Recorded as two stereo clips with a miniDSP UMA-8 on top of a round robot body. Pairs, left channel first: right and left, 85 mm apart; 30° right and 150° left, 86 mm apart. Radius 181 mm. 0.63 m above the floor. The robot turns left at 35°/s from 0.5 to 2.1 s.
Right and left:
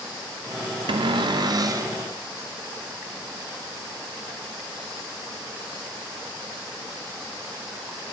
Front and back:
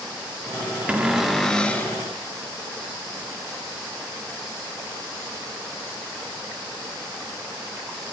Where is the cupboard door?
75° left, 0.6 m; by 1.9 s 35° left, 0.6 m.